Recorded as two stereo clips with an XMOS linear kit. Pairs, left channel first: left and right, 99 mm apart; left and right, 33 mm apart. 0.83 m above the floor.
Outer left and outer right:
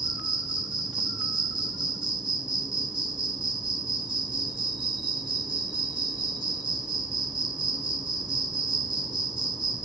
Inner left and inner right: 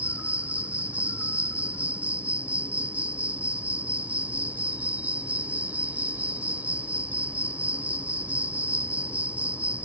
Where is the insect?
50° right (ahead or behind).